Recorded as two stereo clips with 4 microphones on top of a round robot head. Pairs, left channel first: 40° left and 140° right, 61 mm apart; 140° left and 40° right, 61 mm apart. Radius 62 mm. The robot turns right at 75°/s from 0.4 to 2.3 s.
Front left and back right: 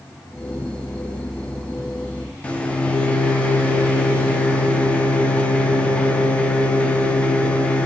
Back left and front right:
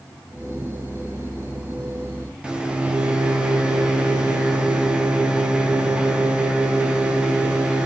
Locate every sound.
2.4 s a microwave: 10° left, 0.5 m